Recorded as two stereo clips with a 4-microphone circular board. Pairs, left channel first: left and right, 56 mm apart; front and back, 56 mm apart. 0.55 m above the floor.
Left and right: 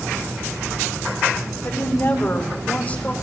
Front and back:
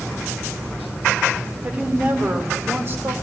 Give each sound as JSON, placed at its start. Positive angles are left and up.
{"t": 1.6, "sound": "a woman speaking", "azimuth_deg": 120, "distance_m": 1.9}